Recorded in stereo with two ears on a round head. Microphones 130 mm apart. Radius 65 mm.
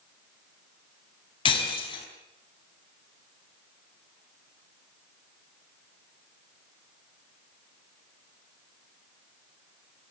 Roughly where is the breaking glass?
Left.